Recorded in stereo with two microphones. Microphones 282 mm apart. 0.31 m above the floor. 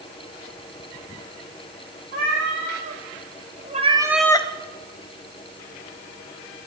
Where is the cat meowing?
45° right (ahead or behind), 2.5 m; by 4.5 s 25° left (ahead or behind), 0.6 m.